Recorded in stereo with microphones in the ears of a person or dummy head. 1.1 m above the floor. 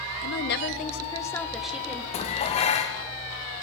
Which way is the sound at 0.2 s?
55° left (ahead or behind).